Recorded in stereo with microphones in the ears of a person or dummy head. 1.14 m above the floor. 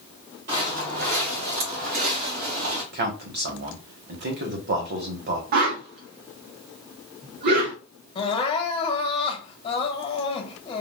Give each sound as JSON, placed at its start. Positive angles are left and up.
{"t": 0.5, "sound": "footsteps", "side_deg": -50, "distance_m": 1.6}
{"t": 2.9, "sound": "a man speaking", "side_deg": -55, "distance_m": 1.2}
{"t": 5.5, "sound": "a whoosh", "side_deg": -55, "distance_m": 0.7}
{"t": 8.2, "sound": "crying", "side_deg": 30, "distance_m": 0.9}